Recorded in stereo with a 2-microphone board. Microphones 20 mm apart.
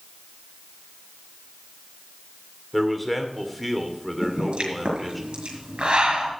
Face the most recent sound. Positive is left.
turn(degrees=-60)  # may be behind; listen again after turning